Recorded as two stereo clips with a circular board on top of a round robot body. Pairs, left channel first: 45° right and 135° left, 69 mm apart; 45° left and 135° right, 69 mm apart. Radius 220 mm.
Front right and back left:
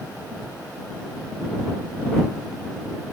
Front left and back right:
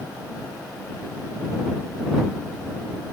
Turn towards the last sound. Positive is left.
No sound to turn to.